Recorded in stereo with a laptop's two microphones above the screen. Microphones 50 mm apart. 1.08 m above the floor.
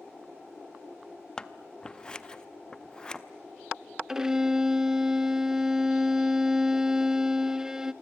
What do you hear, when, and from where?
1.4 s scissors: 15° left (ahead or behind), 0.7 m
4.1 s a violin: 10° right (ahead or behind), 0.6 m